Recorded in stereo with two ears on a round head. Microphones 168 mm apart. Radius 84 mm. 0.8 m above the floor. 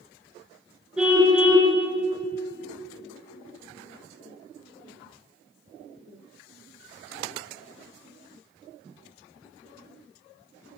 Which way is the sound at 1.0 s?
5° right (ahead or behind).